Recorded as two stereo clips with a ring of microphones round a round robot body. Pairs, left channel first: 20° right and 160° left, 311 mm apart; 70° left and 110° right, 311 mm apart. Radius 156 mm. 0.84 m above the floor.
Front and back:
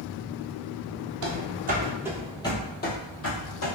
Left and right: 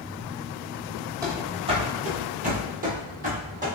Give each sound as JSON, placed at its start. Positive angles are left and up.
{"t": 1.2, "sound": "running footsteps", "azimuth_deg": 170, "distance_m": 1.1}